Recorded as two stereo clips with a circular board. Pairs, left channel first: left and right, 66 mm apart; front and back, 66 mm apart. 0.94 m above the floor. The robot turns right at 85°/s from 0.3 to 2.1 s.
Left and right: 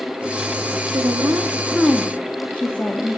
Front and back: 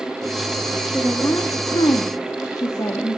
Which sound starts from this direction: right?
A woman speaking, at 0.9 s.